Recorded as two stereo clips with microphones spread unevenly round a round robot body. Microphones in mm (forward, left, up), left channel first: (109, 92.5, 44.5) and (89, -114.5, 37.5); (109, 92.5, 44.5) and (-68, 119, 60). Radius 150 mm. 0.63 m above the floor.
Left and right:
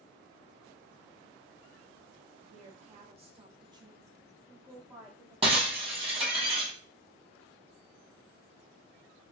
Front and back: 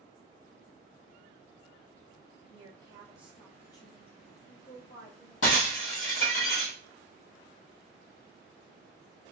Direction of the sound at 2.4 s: 140° right.